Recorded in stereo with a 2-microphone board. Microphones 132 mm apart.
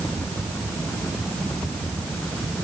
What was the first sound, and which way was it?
Only background noise.